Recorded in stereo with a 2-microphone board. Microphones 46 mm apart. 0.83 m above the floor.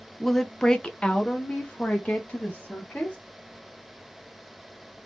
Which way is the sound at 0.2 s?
5° left (ahead or behind).